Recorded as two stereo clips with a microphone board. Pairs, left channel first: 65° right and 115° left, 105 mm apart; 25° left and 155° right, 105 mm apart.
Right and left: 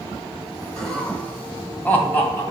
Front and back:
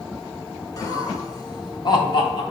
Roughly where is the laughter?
Ahead.